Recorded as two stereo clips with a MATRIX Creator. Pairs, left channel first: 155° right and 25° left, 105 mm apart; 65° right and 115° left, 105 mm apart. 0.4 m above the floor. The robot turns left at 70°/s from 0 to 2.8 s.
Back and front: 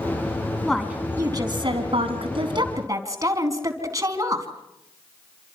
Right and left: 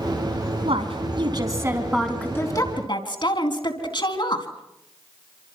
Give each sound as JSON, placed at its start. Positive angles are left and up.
{"t": 0.7, "sound": "a woman speaking", "azimuth_deg": 115, "distance_m": 4.0}